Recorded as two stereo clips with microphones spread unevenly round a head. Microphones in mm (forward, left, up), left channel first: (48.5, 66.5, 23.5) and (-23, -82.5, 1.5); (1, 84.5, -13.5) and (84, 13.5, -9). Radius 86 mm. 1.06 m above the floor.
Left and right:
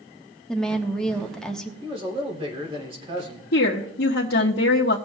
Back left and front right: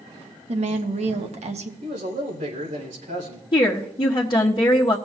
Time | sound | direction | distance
0.5 | a woman speaking | 25° right | 1.3 m
1.8 | a man speaking | 55° right | 3 m
3.5 | a woman speaking | 90° left | 1.2 m